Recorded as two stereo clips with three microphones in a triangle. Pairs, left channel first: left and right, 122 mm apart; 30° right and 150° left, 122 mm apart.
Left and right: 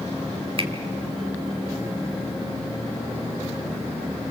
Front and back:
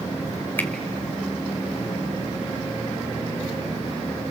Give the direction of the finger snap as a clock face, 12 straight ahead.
3 o'clock.